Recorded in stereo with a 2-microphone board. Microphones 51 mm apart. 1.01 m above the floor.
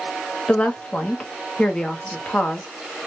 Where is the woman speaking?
20° left (ahead or behind), 0.9 m.